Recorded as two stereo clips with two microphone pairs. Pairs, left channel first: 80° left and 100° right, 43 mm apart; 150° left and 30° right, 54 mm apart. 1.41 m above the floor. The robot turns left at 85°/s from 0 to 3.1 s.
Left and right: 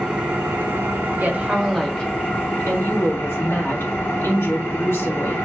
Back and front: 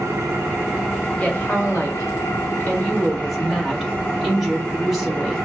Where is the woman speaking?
140° right, 1.5 m; by 5.5 s 55° left, 1.5 m.